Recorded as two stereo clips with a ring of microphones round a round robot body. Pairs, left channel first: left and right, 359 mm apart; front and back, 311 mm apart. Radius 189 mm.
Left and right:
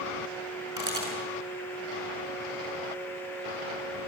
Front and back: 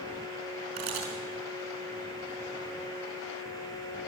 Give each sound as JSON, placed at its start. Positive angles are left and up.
{"t": 0.8, "sound": "a camera shutter", "azimuth_deg": -170, "distance_m": 5.5}